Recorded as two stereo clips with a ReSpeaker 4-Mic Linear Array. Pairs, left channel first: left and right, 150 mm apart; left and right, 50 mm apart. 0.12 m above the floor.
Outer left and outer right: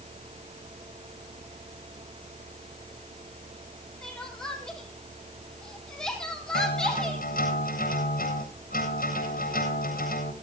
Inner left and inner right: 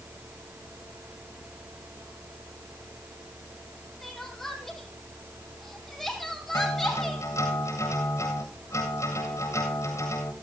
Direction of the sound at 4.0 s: 5° left (ahead or behind).